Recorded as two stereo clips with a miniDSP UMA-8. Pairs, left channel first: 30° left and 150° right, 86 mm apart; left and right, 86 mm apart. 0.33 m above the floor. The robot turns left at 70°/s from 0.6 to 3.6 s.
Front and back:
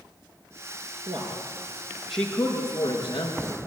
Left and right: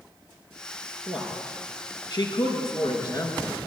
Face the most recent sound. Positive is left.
turn(degrees=15)